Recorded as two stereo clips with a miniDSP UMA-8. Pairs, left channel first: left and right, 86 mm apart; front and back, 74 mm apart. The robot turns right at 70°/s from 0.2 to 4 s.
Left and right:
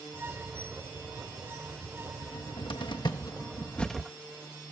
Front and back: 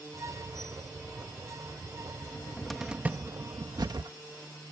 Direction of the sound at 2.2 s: 55° left.